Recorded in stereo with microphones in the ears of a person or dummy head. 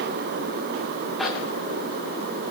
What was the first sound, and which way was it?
A zipper, centre (ahead or behind).